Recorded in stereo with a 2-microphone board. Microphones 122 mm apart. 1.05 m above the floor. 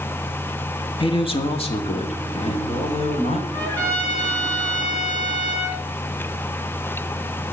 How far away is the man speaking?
About 1.6 m.